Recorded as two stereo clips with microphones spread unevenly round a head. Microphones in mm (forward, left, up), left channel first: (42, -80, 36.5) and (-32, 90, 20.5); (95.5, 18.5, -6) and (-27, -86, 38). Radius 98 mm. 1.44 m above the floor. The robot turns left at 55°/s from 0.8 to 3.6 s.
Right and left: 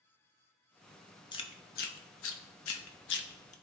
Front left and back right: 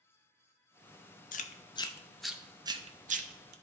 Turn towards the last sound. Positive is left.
turn(degrees=-125)